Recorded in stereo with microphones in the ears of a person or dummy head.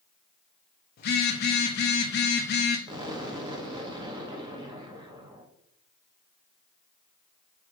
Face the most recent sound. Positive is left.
turn(degrees=-25)  # may be behind; listen again after turning